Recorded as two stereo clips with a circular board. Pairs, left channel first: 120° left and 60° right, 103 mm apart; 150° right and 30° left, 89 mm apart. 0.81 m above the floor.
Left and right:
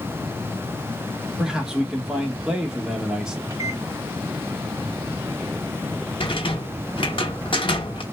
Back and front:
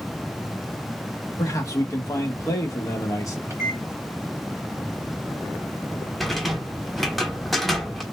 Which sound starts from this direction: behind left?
A rattle, at 6.2 s.